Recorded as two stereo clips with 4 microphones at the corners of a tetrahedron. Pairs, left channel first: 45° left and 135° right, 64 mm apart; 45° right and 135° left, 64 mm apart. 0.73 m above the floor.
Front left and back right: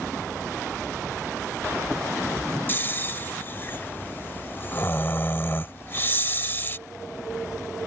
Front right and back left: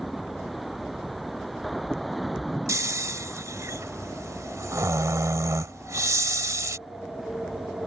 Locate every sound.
2.7 s snoring: 100° left